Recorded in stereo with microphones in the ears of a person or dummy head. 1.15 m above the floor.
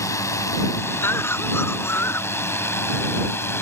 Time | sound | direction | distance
0.0 | a drone | 20° left (ahead or behind) | ?
1.0 | a cough | 15° left (ahead or behind) | ?